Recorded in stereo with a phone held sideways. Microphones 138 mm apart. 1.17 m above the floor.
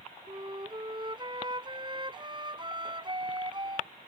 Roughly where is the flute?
Right.